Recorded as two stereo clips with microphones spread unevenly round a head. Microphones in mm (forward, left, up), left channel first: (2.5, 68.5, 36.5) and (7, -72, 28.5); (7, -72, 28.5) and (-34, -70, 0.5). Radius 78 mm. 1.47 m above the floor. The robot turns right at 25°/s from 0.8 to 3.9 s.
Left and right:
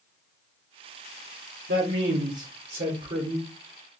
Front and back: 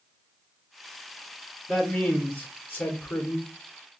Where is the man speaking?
75° right, 0.9 m; by 3.5 s 30° right, 0.9 m.